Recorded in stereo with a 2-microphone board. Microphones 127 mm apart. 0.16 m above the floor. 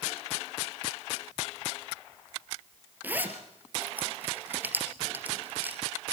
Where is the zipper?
15° right (ahead or behind), 2.0 m.